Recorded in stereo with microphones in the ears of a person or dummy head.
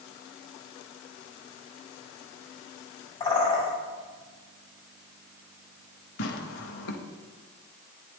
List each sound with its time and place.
3.2 s a bird: 25° left (ahead or behind), 4 m
6.2 s tearing paper: 55° left (ahead or behind), 1.0 m